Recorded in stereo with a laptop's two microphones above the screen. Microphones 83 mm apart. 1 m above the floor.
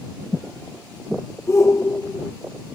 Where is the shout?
35° left (ahead or behind).